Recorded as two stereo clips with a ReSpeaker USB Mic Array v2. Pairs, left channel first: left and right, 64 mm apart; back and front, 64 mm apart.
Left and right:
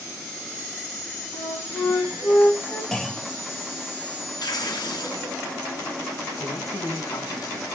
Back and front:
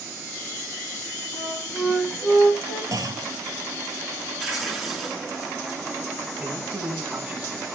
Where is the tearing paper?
90° left, 7 m.